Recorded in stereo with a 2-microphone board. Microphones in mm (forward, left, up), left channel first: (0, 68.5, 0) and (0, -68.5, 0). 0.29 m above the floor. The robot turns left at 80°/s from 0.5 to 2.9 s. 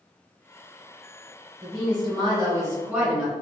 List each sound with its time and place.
1.6 s a woman speaking: 50° right, 1.4 m; by 3.3 s 155° right, 1.4 m